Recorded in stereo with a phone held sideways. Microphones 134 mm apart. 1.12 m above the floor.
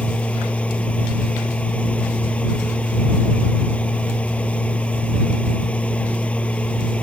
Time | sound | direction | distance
0.0 | a machine running | 10° left (ahead or behind) | ?